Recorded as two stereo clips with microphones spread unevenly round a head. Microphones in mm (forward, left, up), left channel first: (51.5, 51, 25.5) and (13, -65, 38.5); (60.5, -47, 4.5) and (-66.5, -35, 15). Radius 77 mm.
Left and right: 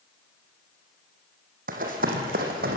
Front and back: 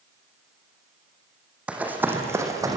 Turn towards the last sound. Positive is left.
turn(degrees=-125)